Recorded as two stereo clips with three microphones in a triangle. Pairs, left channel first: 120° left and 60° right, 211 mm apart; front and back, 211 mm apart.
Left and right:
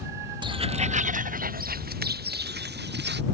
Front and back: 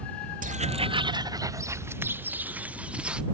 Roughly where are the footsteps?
Behind right.